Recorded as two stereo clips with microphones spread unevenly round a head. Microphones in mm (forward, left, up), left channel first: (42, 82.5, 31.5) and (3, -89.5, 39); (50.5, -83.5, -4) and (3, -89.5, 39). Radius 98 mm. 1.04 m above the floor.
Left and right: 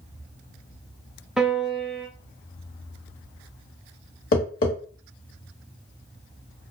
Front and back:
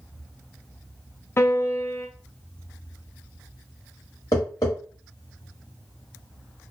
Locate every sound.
1.4 s a piano: 15° right, 0.6 m
4.3 s tapping: 95° left, 0.9 m